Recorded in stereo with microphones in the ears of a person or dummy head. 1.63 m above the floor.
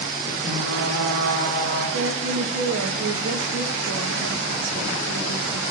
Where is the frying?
60° right (ahead or behind), 4.5 m.